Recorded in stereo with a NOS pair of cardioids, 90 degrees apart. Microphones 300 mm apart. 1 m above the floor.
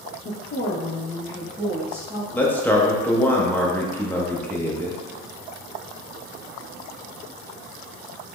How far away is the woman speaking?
About 0.7 m.